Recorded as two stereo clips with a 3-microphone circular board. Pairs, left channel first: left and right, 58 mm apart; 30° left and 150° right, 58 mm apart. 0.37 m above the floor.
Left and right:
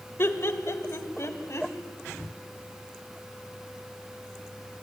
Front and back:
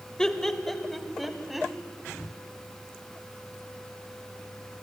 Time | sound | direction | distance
0.2 | laughter | 105° left | 1.7 m